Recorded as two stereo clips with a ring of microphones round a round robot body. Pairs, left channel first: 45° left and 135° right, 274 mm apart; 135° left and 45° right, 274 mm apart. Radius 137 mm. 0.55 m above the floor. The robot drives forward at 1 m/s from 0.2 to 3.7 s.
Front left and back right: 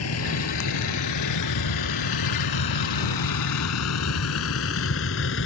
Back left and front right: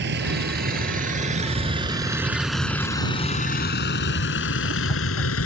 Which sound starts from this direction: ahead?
A vehicle, at 0.0 s.